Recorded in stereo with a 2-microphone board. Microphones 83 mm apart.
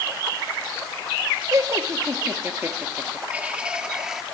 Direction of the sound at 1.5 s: 40° right (ahead or behind).